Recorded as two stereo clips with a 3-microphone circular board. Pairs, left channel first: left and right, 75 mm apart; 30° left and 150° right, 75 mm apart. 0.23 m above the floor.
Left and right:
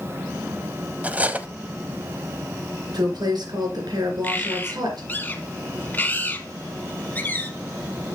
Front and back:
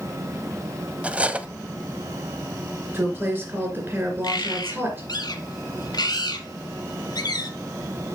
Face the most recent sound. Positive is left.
turn(degrees=30)